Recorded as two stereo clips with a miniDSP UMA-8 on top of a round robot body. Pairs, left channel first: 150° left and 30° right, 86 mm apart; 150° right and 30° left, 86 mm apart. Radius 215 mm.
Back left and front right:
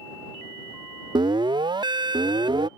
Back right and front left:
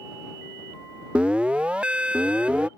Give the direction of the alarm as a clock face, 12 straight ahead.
2 o'clock.